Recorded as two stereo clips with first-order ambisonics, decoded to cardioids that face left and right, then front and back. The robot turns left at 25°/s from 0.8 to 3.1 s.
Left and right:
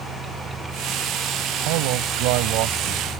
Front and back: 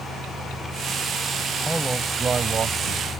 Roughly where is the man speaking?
Right.